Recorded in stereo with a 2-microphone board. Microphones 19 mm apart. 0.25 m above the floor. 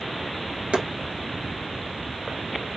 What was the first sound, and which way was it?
Chopping, 85° right.